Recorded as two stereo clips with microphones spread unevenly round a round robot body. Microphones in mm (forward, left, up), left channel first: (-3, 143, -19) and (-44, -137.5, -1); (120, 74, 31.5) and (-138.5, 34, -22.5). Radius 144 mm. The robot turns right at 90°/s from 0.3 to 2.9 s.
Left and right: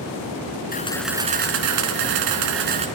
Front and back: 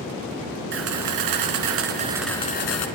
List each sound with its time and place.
0.7 s a camera shutter: 140° left, 3 m; by 2.9 s 25° right, 3 m